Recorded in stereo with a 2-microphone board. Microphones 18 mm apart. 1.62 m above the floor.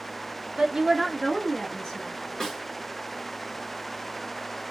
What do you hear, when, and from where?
0.6 s a woman speaking: 50° right (ahead or behind), 0.6 m; by 2.2 s 50° left (ahead or behind), 1.3 m
2.4 s a snare drum: 35° left (ahead or behind), 1.7 m